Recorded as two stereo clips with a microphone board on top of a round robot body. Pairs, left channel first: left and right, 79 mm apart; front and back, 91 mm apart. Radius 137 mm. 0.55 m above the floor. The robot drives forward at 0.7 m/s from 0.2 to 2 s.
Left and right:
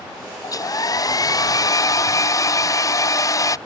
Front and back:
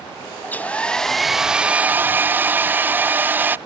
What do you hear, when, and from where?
0.4 s a hair dryer: 65° left; by 3.6 s 115° left